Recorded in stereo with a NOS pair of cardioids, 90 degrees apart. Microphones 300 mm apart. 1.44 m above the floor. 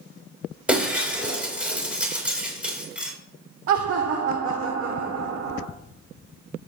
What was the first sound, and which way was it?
Breaking glass, 5° right.